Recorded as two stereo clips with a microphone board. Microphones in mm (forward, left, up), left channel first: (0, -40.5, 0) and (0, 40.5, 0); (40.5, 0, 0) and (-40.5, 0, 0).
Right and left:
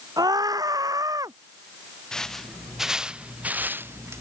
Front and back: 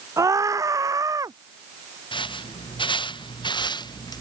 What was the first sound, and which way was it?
A scream, 130° left.